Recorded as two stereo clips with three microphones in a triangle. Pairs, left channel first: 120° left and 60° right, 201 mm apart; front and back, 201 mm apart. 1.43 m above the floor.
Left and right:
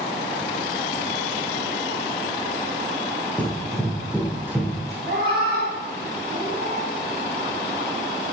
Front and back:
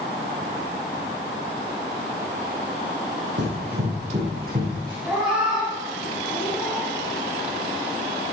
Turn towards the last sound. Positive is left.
turn(degrees=-95)